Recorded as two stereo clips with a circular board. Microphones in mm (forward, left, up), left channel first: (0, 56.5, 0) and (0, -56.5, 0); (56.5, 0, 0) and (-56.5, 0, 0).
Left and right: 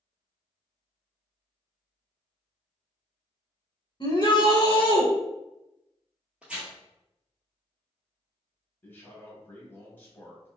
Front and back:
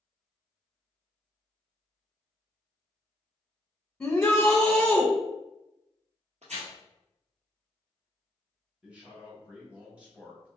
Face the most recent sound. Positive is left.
turn(degrees=125)